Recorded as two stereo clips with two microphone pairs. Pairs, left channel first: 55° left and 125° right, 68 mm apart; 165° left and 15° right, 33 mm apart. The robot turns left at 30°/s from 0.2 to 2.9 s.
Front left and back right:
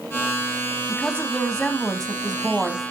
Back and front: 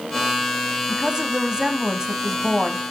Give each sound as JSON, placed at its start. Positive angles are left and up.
{"t": 0.9, "sound": "a woman speaking", "azimuth_deg": 5, "distance_m": 1.0}